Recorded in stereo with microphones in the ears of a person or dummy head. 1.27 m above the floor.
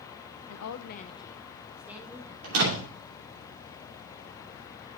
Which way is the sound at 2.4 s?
85° right.